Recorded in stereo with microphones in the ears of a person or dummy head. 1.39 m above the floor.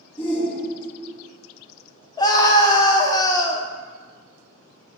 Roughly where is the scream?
Left.